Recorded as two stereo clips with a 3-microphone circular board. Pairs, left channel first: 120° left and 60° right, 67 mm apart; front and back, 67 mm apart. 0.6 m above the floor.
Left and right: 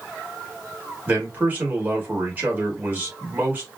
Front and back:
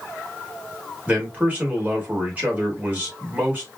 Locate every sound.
1.1 s a man speaking: 120° right, 2.5 m